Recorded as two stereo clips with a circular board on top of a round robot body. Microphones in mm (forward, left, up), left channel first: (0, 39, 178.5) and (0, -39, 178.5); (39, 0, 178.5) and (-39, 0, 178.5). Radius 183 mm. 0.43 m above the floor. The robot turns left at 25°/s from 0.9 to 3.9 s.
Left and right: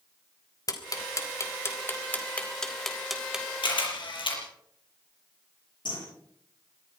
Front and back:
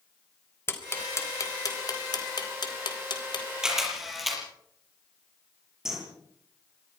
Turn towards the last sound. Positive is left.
turn(degrees=95)